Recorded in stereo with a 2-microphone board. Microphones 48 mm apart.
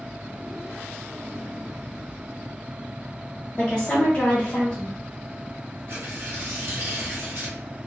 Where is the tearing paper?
55° right (ahead or behind), 0.9 m.